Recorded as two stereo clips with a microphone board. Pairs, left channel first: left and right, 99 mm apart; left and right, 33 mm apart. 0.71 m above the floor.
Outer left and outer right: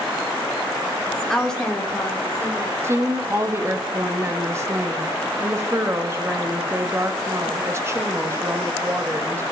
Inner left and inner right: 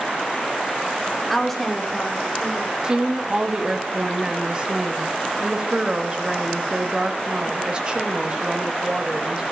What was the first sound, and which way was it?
A woman speaking, 5° left (ahead or behind).